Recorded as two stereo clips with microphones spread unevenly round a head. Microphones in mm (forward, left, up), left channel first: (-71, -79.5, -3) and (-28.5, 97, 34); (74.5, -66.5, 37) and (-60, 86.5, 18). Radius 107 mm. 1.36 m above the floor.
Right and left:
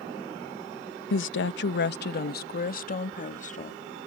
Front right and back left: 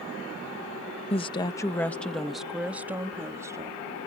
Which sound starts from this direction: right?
A woman speaking, at 1.1 s.